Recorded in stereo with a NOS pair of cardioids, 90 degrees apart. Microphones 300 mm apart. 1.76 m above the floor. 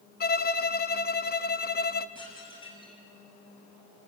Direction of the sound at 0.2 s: 30° left.